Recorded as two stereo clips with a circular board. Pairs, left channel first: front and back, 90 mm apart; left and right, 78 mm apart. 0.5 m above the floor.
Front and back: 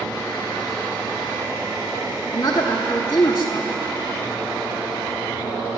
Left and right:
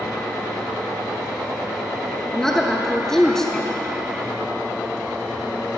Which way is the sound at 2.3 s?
10° left.